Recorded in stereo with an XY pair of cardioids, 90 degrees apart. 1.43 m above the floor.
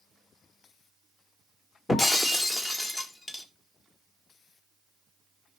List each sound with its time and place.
1.9 s breaking glass: 30° left, 2.5 m